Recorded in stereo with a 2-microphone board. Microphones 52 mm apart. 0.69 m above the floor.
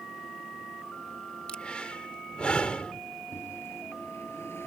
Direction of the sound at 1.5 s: 25° left (ahead or behind).